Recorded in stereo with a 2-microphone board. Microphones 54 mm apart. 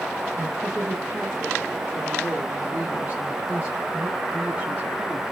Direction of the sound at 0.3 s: 20° right (ahead or behind).